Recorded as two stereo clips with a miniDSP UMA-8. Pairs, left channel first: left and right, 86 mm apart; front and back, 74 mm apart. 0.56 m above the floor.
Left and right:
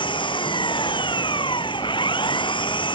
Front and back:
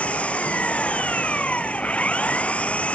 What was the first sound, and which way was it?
An engine running, 70° left.